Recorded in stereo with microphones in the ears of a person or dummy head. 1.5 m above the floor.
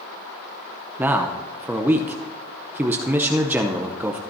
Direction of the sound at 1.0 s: 10° right (ahead or behind).